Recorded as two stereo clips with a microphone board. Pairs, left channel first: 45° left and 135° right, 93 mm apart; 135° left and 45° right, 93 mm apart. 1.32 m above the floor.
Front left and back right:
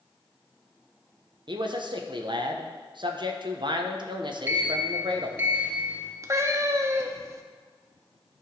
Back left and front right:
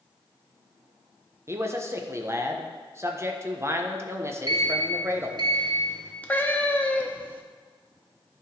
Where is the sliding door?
70° right, 1.5 m.